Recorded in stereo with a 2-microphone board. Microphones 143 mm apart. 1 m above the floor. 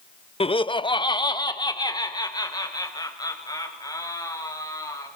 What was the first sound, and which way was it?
Laughter, 40° left (ahead or behind).